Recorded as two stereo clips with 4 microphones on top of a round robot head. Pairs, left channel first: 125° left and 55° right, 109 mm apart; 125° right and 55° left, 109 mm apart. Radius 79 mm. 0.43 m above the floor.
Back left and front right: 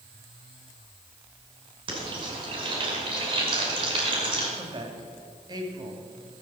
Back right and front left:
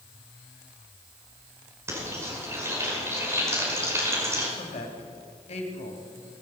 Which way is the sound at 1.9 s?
10° right.